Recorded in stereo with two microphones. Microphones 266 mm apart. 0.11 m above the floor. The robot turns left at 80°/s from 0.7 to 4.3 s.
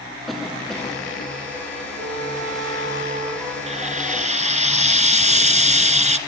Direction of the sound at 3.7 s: 25° right (ahead or behind).